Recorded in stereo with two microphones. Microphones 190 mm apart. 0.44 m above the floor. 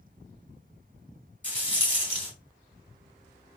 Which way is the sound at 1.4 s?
10° right (ahead or behind).